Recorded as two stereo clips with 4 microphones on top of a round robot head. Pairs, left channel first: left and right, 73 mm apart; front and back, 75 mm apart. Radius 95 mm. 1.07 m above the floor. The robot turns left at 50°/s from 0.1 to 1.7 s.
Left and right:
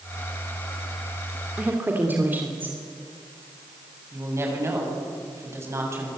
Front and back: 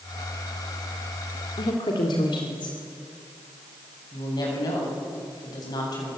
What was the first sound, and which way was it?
A woman speaking, 20° right.